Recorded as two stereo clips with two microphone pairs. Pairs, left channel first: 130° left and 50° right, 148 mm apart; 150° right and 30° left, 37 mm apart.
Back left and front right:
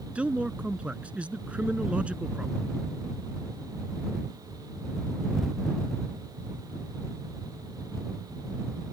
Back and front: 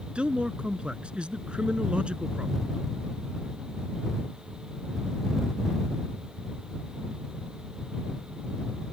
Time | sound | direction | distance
0.1 | a man speaking | 20° left | ?